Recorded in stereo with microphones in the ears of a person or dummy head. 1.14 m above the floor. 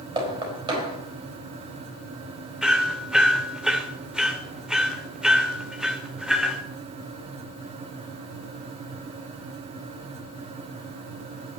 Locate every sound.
0.2 s knocking: 25° right (ahead or behind), 4.5 m
2.6 s hammering: 5° right (ahead or behind), 1.8 m